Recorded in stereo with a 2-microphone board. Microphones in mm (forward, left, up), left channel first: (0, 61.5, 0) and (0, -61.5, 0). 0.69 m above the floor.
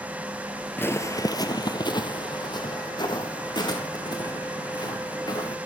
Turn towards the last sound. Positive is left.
turn(degrees=35)  # may be behind; listen again after turning